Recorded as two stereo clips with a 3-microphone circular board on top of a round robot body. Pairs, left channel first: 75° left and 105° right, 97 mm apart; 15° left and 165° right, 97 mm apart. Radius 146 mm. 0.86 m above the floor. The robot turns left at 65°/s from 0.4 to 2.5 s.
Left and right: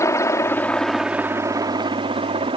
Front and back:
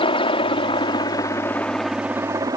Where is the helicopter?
20° left; by 2.6 s 115° right.